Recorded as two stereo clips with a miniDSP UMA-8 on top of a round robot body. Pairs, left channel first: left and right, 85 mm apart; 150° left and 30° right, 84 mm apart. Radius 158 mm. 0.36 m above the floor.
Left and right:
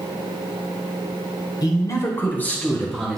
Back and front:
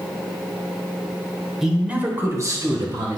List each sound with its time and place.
1.6 s a man speaking: 55° left, 1.8 m; by 3.2 s straight ahead, 2.5 m